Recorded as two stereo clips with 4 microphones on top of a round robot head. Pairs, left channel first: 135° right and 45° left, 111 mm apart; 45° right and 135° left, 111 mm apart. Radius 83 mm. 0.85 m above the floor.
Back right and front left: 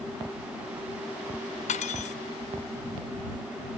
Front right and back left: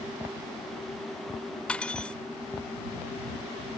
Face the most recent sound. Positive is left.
turn(degrees=-125)